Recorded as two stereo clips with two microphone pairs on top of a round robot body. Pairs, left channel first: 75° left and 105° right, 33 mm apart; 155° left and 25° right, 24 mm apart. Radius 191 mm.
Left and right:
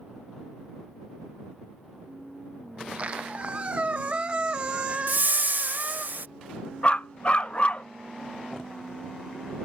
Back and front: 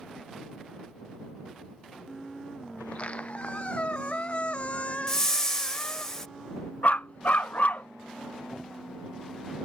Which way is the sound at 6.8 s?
130° left.